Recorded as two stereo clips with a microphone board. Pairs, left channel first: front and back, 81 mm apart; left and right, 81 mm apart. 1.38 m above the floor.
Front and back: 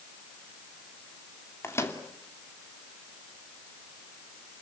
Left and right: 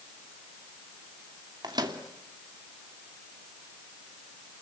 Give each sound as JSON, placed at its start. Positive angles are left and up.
{"t": 1.6, "sound": "a microwave", "azimuth_deg": -55, "distance_m": 2.5}